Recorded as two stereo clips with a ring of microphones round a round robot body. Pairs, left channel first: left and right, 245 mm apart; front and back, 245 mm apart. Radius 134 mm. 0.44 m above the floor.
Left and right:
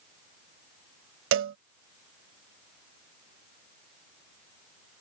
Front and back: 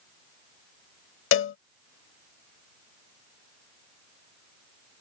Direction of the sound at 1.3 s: 40° right.